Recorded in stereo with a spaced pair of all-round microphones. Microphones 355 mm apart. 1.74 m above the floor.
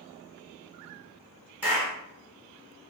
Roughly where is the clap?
Centre.